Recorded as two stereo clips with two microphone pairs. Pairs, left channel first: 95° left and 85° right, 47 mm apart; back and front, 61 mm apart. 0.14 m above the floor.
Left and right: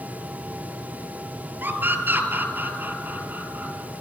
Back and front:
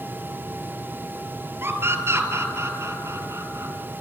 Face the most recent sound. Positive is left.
turn(degrees=-30)